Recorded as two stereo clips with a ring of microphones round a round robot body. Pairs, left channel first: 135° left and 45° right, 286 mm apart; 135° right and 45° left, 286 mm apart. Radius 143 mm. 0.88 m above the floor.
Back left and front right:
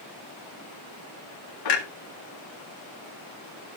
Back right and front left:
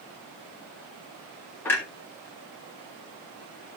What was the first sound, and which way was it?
A clunk, 140° left.